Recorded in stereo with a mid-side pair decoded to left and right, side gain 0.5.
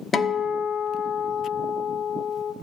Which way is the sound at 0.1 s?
35° left.